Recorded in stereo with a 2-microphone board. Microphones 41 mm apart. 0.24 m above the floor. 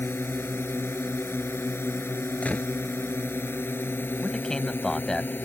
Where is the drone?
65° left (ahead or behind); by 5.4 s 50° left (ahead or behind).